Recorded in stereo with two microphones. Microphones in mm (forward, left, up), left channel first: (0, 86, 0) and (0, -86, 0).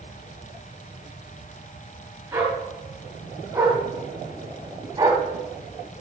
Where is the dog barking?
10° right (ahead or behind), 5 m; by 5.2 s 20° right (ahead or behind), 3 m.